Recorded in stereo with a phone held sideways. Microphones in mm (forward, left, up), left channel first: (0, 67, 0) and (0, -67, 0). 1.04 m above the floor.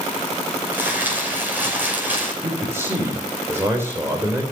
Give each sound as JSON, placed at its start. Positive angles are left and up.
{"t": 0.7, "sound": "crumpling", "side_deg": -15, "distance_m": 5.5}
{"t": 2.4, "sound": "a man speaking", "side_deg": -20, "distance_m": 3.5}